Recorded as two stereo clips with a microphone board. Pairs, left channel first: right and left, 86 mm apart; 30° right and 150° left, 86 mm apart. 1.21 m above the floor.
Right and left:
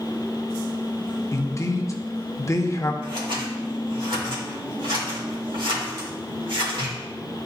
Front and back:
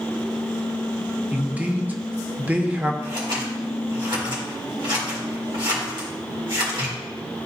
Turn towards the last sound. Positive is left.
turn(degrees=115)